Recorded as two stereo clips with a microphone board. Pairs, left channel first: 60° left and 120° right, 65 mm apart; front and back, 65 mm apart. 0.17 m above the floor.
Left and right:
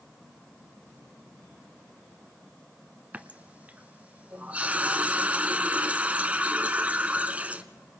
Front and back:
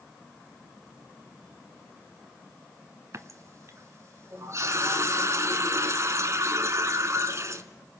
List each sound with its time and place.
3.1 s a running tap: straight behind, 1.1 m